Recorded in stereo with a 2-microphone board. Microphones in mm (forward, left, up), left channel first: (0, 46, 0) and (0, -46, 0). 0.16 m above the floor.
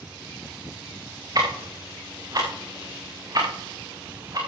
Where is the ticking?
45° right (ahead or behind), 4.5 m.